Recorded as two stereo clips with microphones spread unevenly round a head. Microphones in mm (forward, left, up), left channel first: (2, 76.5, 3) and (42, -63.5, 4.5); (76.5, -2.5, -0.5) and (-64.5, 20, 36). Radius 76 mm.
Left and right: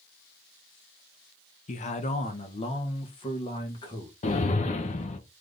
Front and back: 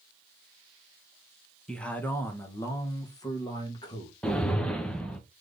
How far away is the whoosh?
About 0.8 m.